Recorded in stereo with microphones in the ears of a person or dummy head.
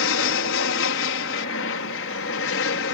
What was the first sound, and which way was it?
An aircraft, 60° left (ahead or behind).